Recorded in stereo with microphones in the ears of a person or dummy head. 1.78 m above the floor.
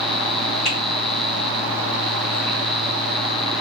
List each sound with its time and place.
0.7 s a finger snap: 50° left (ahead or behind), 2 m